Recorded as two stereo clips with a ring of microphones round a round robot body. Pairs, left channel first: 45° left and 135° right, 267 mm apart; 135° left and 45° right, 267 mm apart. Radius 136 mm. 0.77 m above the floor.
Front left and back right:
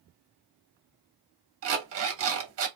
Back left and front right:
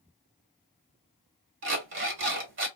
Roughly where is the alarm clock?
Right.